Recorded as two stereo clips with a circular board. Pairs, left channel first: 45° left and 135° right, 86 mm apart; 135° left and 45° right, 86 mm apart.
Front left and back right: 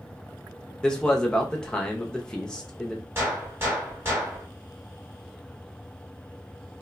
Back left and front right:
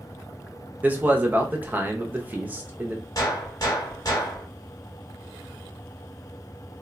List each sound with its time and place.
0.8 s a man speaking: 20° right, 0.6 m
3.1 s a gunshot: 170° left, 1.2 m